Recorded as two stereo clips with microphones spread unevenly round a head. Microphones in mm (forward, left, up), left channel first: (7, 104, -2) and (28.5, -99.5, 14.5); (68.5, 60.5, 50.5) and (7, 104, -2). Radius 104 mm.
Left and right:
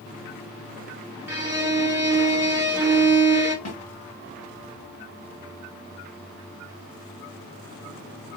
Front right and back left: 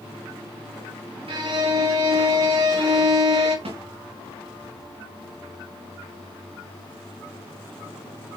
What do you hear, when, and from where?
1.3 s a violin: 160° right, 1.7 m
3.6 s a snare drum: 150° left, 3.5 m